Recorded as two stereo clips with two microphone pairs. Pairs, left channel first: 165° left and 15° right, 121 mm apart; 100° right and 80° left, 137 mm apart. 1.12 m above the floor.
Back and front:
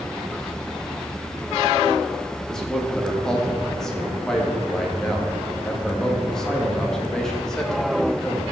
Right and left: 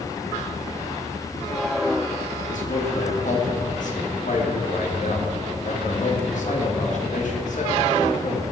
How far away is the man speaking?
About 2 m.